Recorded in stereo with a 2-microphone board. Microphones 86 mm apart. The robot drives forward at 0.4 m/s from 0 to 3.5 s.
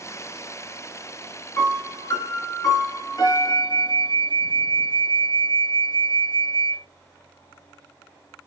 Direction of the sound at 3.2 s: 65° right (ahead or behind).